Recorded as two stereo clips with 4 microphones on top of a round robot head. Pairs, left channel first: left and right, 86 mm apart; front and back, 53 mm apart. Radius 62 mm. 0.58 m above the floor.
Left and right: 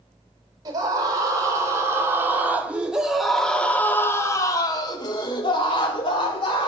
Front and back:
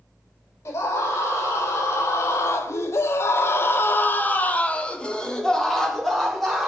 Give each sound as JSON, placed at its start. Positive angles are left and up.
{"t": 0.7, "sound": "a scream", "azimuth_deg": -40, "distance_m": 2.0}